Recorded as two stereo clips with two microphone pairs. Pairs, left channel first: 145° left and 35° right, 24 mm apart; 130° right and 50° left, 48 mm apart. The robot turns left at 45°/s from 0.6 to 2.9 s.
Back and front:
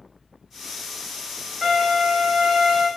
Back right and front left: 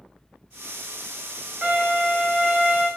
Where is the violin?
20° left, 1.5 m; by 2.9 s 35° right, 1.5 m.